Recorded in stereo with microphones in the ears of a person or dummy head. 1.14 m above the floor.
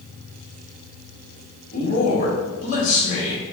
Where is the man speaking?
40° left (ahead or behind), 1.7 m.